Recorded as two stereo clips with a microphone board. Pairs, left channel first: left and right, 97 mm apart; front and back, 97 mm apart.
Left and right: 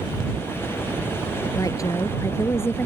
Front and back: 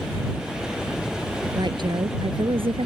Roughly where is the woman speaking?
Behind left.